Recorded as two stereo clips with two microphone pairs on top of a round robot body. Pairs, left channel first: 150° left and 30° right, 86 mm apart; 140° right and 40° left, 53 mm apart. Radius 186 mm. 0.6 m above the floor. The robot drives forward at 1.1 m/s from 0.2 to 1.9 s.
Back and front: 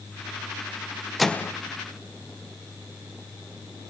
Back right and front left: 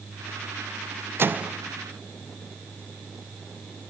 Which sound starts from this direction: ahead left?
A microwave, at 1.2 s.